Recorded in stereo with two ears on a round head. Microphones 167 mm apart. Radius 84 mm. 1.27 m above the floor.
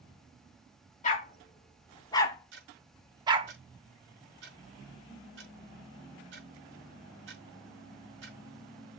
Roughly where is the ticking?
Right.